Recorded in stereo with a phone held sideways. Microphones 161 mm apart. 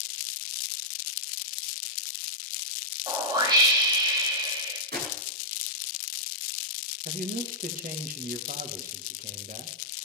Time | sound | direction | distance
3.1 | a whoosh | 25° right (ahead or behind) | 2.5 m
4.9 | a gunshot | 85° right | 10 m
7.0 | a man speaking | 60° right (ahead or behind) | 1.7 m